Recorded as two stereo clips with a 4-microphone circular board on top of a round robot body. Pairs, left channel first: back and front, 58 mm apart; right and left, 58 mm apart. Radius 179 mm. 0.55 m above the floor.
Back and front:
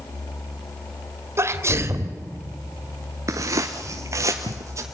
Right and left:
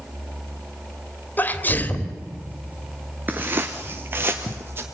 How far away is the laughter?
No laughter in this recording.